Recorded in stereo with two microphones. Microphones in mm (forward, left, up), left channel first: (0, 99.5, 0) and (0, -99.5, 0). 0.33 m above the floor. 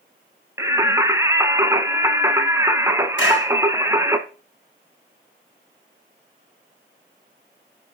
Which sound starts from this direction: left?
A clap, at 3.2 s.